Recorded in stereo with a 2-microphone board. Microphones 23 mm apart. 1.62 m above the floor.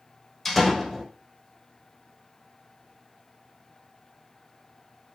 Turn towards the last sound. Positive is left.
turn(degrees=5)  # may be behind; listen again after turning